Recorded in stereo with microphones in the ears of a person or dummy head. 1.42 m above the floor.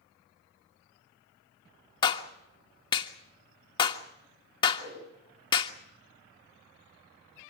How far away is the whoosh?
About 9.5 m.